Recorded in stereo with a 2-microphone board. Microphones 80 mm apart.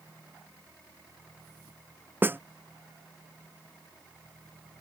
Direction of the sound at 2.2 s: 25° right (ahead or behind).